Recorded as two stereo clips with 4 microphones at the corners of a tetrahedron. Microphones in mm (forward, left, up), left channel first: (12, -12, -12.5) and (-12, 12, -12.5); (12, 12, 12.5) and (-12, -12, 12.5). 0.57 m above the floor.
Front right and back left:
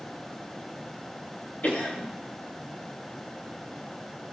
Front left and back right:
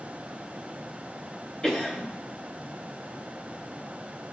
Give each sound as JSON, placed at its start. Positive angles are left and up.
{"t": 1.6, "sound": "a cough", "azimuth_deg": -25, "distance_m": 2.5}